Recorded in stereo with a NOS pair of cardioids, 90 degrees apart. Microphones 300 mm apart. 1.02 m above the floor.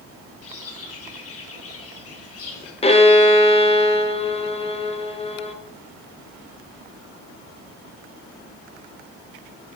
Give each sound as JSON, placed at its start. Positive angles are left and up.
{"t": 0.4, "sound": "a bird", "azimuth_deg": 50, "distance_m": 4.0}
{"t": 2.8, "sound": "a violin", "azimuth_deg": 20, "distance_m": 1.4}